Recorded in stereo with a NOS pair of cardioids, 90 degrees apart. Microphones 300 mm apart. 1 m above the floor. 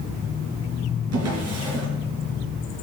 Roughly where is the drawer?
Ahead right.